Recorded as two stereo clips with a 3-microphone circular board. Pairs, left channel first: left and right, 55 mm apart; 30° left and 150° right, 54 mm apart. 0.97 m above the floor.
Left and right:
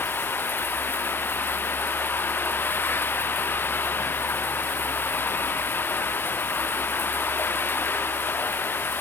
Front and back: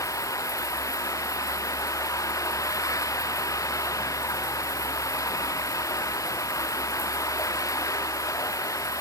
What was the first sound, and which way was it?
Running water, 40° left.